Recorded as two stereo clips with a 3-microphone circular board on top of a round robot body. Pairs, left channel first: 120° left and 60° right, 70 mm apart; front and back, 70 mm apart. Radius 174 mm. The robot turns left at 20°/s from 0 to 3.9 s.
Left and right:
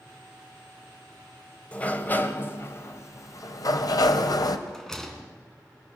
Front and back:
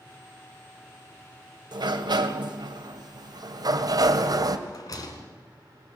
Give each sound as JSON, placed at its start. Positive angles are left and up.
{"t": 1.7, "sound": "a sliding door", "azimuth_deg": -165, "distance_m": 1.7}
{"t": 4.7, "sound": "a rattle", "azimuth_deg": 35, "distance_m": 3.0}